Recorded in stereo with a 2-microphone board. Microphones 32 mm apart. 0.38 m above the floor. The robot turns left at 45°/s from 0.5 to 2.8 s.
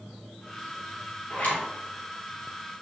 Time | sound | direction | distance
1.3 | a zipper | 55° left (ahead or behind) | 1.9 m